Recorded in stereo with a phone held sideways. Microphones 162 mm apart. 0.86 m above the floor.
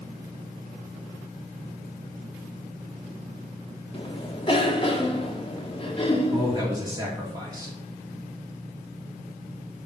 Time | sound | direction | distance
3.9 | a cough | 35° left (ahead or behind) | 1.6 m
6.3 | a man speaking | 25° right (ahead or behind) | 2 m